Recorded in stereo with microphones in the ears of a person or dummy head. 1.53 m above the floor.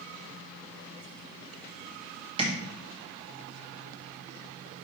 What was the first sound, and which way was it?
Tapping, 30° right (ahead or behind).